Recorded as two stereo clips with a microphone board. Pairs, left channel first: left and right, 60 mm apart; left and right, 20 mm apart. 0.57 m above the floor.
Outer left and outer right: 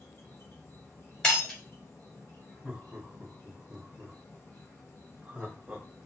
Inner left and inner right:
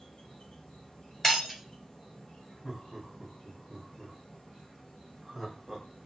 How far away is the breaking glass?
About 1.5 m.